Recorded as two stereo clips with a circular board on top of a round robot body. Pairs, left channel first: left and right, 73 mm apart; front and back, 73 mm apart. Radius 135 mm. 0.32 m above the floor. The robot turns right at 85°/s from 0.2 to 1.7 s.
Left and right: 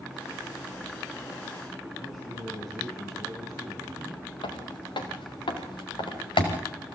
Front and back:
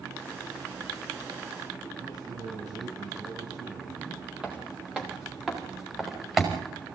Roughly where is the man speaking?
Behind.